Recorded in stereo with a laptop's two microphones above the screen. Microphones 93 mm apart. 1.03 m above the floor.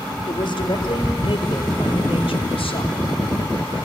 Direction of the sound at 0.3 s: 55° left (ahead or behind).